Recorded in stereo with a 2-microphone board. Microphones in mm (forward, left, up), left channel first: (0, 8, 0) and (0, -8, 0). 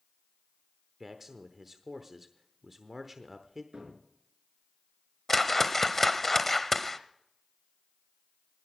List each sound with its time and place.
1.0 s a man speaking: 15° right (ahead or behind), 0.9 m
3.7 s a cupboard door: 60° right (ahead or behind), 4.5 m
5.3 s a whoosh: 10° left (ahead or behind), 0.8 m